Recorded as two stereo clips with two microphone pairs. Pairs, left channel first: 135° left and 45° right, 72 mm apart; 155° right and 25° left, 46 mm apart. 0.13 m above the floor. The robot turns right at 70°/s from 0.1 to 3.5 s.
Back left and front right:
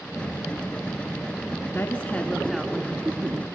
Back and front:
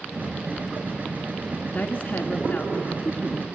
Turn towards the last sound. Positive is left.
turn(degrees=-65)